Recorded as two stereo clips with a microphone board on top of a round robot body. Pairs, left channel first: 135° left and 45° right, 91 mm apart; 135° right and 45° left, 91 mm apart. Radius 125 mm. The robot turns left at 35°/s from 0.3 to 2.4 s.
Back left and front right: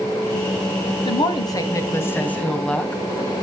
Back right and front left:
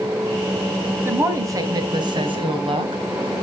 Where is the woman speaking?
110° left, 3 m; by 3.0 s 60° left, 3 m.